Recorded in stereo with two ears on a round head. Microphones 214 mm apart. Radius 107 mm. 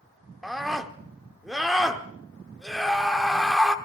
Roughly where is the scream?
Centre.